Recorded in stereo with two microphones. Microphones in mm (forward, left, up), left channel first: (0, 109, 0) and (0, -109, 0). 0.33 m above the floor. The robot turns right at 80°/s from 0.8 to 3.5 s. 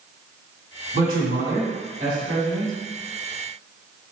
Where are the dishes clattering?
No dishes clattering in this recording.